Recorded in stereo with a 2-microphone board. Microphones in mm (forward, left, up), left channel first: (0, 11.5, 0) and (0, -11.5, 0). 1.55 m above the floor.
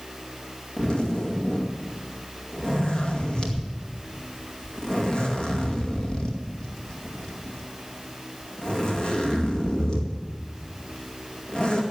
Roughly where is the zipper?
Left.